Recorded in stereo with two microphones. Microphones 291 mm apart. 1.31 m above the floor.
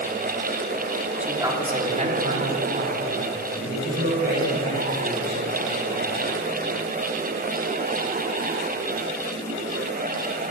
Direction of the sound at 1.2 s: 5° right (ahead or behind).